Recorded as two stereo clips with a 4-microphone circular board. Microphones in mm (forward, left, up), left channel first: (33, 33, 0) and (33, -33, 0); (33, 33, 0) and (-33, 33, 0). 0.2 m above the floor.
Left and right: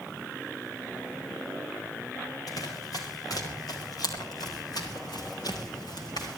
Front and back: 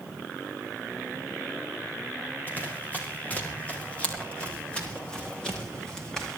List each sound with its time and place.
2.5 s running footsteps: 65° left, 8.5 m; by 6.4 s 80° left, 8.5 m